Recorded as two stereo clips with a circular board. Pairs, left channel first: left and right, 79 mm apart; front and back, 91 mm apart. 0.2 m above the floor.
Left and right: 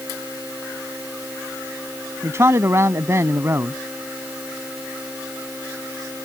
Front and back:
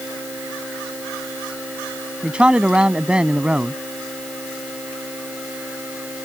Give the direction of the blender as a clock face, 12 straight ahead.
No blender in this recording.